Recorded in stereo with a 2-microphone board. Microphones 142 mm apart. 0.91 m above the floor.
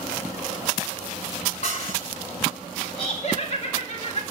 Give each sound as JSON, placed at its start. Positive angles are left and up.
{"t": 1.6, "sound": "dishes clattering", "side_deg": 50, "distance_m": 7.0}
{"t": 3.0, "sound": "laughter", "side_deg": 45, "distance_m": 1.9}